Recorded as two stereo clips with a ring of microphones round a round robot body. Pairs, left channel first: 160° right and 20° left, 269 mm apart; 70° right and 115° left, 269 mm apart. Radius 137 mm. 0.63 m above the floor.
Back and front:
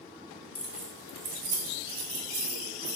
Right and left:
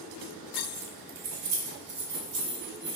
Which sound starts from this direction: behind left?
Keys jangling, at 0.6 s.